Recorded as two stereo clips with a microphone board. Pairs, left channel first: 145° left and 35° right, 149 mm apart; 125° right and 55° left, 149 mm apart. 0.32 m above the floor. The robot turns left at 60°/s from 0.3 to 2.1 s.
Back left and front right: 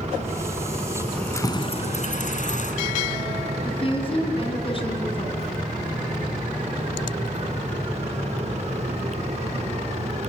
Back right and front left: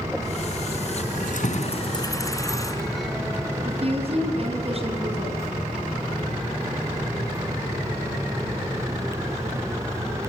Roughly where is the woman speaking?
Left.